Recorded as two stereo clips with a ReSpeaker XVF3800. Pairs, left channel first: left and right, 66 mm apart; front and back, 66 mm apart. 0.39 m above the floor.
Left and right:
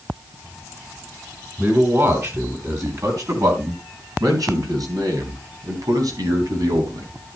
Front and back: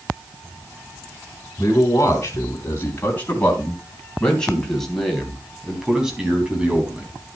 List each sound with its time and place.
1.6 s a man speaking: 45° right, 4 m; by 7.1 s 110° right, 4 m